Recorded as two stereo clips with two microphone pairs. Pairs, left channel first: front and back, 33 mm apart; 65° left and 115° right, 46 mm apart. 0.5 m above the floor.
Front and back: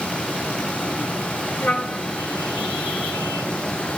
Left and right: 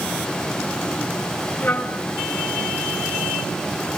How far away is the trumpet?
About 3.5 m.